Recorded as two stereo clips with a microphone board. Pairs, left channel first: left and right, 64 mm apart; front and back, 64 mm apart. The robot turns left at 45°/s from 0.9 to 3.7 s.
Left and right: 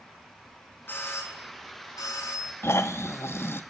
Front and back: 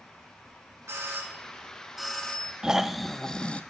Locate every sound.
0.9 s a doorbell: 140° left, 2.5 m; by 2.5 s 70° left, 2.5 m
2.6 s snoring: 105° left, 0.7 m; by 3.6 s 60° left, 0.7 m